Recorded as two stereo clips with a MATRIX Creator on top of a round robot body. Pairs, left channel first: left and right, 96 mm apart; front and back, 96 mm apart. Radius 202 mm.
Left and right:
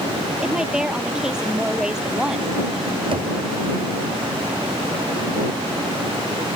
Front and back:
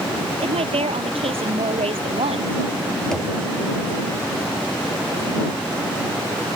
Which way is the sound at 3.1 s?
85° right.